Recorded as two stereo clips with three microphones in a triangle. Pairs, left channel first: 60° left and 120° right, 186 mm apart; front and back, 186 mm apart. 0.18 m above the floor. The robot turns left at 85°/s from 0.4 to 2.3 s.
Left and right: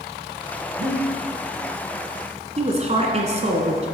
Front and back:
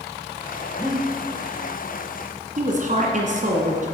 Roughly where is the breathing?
Right.